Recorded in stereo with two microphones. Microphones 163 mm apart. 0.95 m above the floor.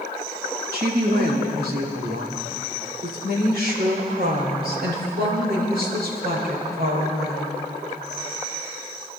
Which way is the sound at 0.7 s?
70° right (ahead or behind).